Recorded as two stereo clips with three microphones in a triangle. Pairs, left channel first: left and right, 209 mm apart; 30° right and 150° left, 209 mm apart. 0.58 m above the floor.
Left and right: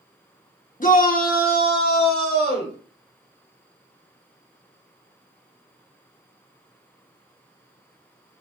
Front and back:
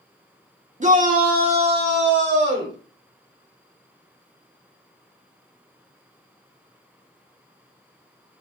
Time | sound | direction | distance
0.8 | a shout | 115° left | 0.9 m